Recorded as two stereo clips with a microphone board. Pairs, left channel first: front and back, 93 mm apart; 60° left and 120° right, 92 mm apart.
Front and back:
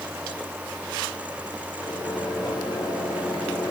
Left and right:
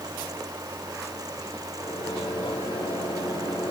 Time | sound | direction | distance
1.8 | a microwave | 50° left | 7.5 m